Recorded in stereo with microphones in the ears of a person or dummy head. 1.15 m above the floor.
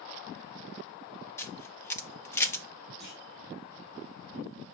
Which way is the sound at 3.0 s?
5° left (ahead or behind).